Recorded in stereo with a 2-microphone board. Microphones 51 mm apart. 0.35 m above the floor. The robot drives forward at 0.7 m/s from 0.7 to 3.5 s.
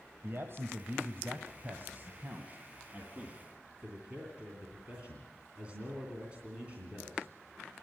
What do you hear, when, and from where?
0.2 s a man speaking: 55° right (ahead or behind), 1.4 m; by 7.3 s 25° right (ahead or behind), 2.5 m